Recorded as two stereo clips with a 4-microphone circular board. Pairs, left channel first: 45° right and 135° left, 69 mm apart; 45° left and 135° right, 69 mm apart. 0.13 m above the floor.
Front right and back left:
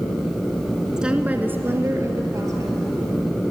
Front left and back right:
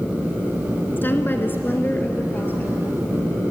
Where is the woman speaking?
65° left, 1.2 m; by 2.7 s 105° left, 2.5 m.